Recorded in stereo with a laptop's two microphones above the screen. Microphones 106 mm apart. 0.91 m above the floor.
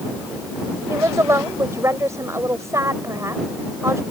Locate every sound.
0.9 s a woman speaking: 25° right (ahead or behind)